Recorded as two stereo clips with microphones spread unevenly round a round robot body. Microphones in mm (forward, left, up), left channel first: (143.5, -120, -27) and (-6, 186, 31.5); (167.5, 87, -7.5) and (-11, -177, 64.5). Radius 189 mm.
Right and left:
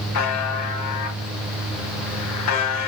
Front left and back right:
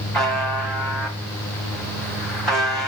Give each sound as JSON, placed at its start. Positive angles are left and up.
{"t": 0.1, "sound": "a buzzer", "azimuth_deg": -30, "distance_m": 3.5}